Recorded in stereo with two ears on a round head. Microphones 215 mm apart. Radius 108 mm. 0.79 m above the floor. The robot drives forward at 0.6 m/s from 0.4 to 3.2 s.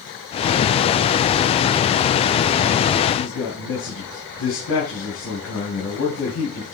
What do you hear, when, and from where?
3.1 s a man speaking: 75° left (ahead or behind), 4.5 m